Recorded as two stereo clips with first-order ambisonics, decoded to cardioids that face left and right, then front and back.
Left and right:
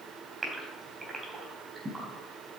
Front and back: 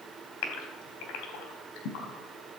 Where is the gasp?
15° right, 3.5 m.